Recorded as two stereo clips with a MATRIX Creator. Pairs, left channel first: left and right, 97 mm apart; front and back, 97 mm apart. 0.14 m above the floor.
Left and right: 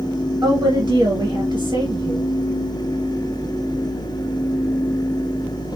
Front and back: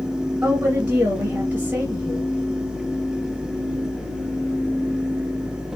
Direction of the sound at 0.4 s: 135° right.